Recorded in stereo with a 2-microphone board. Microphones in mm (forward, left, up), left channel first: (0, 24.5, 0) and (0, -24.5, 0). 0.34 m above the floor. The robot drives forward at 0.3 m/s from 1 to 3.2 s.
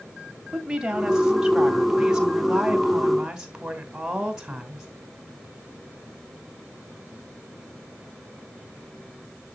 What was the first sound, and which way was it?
A woman speaking, 15° right (ahead or behind).